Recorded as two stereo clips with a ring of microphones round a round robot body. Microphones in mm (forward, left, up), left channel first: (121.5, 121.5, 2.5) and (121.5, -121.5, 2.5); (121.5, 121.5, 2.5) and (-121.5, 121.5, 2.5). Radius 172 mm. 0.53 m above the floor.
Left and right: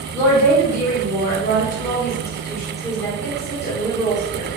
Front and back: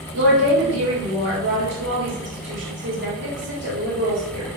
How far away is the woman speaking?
About 1.4 m.